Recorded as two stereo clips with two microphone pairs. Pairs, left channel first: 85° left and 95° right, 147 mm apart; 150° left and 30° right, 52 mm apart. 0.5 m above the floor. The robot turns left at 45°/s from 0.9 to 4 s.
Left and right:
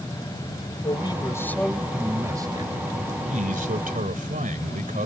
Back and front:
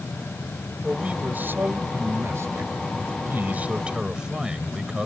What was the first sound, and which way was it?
A man speaking, 35° left.